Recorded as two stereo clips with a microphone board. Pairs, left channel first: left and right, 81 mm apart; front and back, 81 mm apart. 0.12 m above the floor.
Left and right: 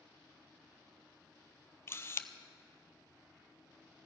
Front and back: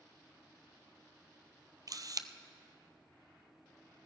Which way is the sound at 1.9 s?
145° left.